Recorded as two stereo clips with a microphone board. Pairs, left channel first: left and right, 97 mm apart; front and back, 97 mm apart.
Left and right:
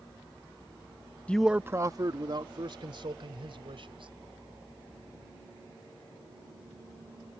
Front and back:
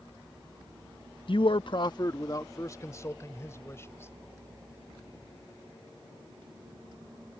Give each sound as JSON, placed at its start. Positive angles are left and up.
{"t": 1.3, "sound": "a man speaking", "azimuth_deg": 15}